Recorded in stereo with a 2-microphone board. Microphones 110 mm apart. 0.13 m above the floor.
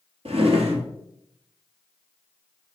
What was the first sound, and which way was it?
A drawer, 60° right (ahead or behind).